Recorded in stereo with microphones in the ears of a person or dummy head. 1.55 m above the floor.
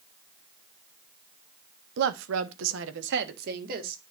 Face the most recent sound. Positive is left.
turn(degrees=-50)  # may be behind; listen again after turning